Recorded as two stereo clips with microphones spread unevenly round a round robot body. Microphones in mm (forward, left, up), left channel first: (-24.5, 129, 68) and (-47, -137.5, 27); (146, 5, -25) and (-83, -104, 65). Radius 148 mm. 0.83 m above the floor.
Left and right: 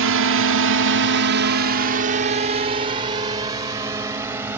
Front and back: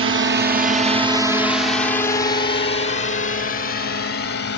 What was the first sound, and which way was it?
A drone, 110° right.